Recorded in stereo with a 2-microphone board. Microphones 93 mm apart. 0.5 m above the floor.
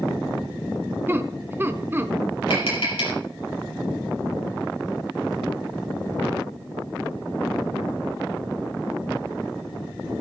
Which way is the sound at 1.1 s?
25° right (ahead or behind).